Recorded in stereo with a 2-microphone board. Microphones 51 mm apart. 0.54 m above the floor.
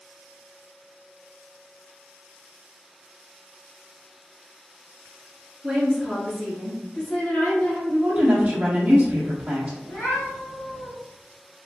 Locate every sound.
5.6 s a woman speaking: centre (ahead or behind), 1.2 m; by 7.8 s 50° left (ahead or behind), 1.8 m
7.9 s a woman speaking: 30° right (ahead or behind), 1.2 m
9.8 s a cat meowing: 80° left, 1.9 m